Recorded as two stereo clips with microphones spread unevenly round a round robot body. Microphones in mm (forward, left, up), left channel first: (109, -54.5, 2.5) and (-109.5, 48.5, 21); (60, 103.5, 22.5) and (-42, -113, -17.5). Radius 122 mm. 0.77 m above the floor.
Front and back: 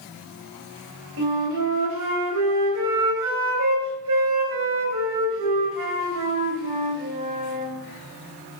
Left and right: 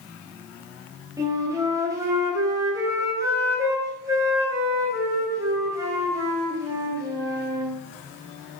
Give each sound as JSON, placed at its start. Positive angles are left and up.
{"t": 1.2, "sound": "a flute", "azimuth_deg": 165, "distance_m": 2.0}